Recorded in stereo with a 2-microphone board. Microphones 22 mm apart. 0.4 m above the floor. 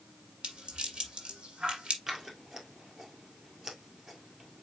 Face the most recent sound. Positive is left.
turn(degrees=-25)  # may be behind; listen again after turning